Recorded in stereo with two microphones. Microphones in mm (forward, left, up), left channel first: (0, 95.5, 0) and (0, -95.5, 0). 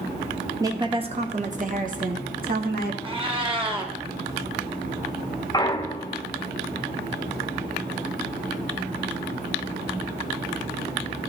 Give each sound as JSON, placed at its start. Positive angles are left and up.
{"t": 0.6, "sound": "a woman speaking", "side_deg": -15, "distance_m": 0.8}
{"t": 3.0, "sound": "a cat meowing", "side_deg": -25, "distance_m": 1.1}
{"t": 5.5, "sound": "a clunk", "side_deg": 20, "distance_m": 0.5}